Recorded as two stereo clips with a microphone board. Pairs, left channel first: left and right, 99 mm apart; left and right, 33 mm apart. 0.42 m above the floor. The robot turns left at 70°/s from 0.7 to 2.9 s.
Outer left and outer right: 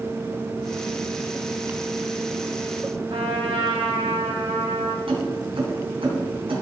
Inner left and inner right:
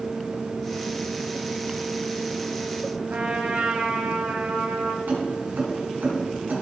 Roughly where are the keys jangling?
Right.